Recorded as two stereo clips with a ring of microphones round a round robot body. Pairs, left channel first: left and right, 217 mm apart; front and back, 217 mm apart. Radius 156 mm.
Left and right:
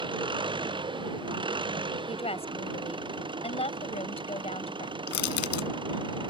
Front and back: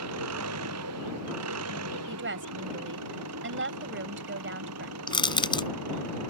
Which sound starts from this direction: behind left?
A woman speaking, at 2.1 s.